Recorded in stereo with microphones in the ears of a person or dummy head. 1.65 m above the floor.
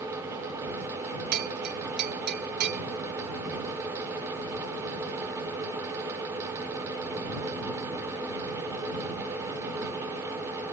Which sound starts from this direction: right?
A bell, at 1.3 s.